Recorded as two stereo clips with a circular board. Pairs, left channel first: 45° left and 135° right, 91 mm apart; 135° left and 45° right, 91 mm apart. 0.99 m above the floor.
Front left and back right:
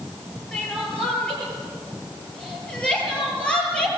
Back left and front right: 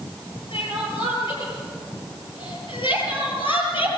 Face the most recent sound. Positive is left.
turn(degrees=125)